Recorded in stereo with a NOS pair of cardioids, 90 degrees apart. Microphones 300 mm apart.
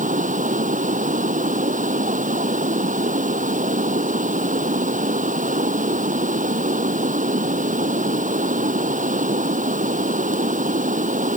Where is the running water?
25° right.